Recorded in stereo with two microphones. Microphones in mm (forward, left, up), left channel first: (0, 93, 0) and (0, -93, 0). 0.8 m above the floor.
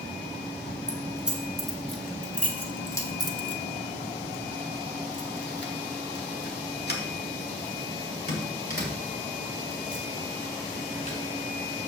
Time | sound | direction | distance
0.9 | keys jangling | 5° right (ahead or behind) | 2 m